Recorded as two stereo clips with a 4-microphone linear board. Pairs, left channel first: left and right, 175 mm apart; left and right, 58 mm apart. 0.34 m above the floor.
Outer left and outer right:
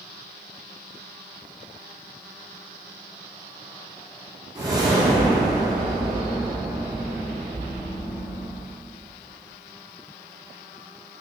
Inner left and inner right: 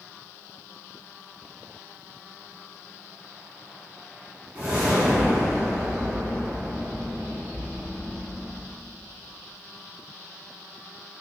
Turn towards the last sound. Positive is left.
turn(degrees=-20)  # may be behind; listen again after turning